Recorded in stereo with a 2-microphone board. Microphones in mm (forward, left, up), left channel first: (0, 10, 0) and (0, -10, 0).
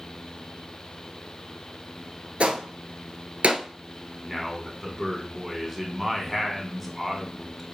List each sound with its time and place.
2.4 s a gunshot: 70° right (ahead or behind), 0.7 m
4.2 s a man speaking: centre (ahead or behind), 1.1 m